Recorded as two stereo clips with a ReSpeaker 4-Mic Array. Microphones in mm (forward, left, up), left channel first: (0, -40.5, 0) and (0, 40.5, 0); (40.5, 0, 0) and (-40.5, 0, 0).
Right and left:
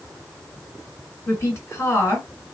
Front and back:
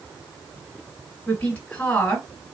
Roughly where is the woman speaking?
Ahead right.